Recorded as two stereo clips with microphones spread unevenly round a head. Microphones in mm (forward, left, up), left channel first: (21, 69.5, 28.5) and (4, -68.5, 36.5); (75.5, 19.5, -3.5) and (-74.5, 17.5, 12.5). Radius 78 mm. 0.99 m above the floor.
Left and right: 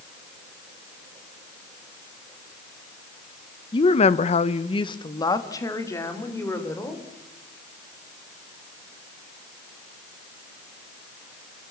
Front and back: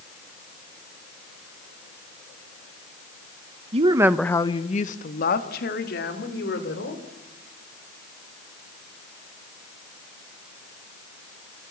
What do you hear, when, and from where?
3.7 s a woman speaking: 135° left, 1.0 m; by 7.0 s 10° left, 4.5 m